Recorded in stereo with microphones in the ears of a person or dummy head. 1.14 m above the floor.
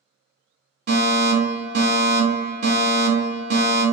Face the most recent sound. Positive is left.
turn(degrees=-30)  # may be behind; listen again after turning